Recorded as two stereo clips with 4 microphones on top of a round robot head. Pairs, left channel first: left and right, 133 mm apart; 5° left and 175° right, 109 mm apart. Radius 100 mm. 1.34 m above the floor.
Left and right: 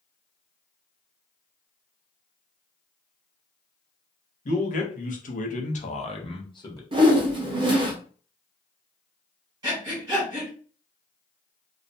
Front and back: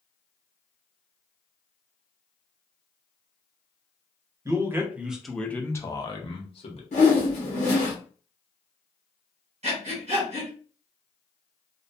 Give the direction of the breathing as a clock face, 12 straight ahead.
5 o'clock.